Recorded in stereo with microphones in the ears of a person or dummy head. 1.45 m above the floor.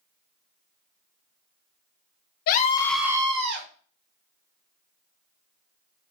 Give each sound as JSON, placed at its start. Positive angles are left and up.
{"t": 2.5, "sound": "a scream", "side_deg": 55, "distance_m": 0.9}